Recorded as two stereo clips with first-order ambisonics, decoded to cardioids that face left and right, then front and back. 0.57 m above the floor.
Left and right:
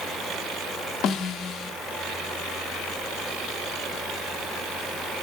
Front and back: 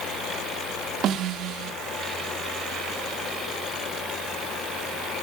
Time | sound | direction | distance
1.0 | a snare drum | 135° left | 0.7 m